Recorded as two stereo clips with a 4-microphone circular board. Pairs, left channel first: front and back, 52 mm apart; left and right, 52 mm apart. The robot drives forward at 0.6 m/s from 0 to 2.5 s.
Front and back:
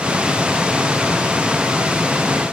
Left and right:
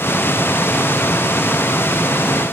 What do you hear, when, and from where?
Only background noise.